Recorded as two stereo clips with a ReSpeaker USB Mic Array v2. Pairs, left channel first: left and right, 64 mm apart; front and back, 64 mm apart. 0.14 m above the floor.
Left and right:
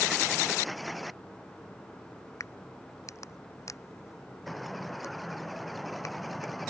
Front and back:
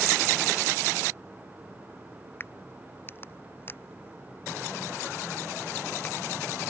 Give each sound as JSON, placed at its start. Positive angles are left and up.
{"t": 2.4, "sound": "a crack", "azimuth_deg": 55}